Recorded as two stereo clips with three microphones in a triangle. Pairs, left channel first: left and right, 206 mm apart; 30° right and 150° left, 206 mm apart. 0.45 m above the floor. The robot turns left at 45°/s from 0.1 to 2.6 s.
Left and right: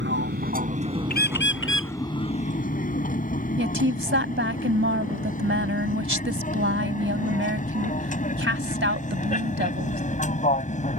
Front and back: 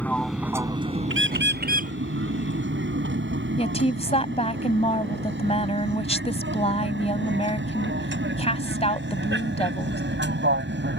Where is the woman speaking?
90° right.